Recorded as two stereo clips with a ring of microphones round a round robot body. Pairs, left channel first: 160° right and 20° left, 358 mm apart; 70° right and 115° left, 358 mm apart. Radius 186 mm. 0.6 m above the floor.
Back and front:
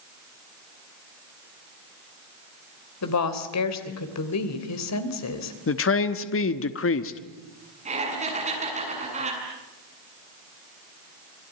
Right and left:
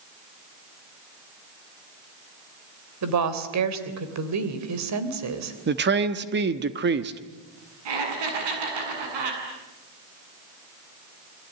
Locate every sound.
3.0 s a woman speaking: 155° left, 3 m
5.7 s a man speaking: 165° left, 1.2 m
7.8 s laughter: 95° left, 7.5 m